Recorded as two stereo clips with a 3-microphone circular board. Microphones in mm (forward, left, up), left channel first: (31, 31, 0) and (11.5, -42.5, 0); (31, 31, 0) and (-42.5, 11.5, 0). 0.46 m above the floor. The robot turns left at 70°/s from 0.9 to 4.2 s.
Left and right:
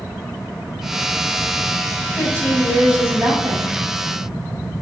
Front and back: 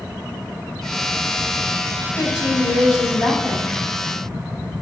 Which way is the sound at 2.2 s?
25° left.